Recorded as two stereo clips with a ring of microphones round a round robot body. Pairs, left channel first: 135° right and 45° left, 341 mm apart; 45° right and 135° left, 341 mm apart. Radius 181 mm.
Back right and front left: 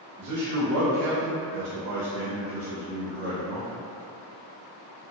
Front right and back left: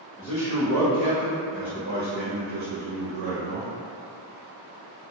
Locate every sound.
0.2 s a man speaking: 10° left, 1.1 m; by 3.7 s 140° left, 1.0 m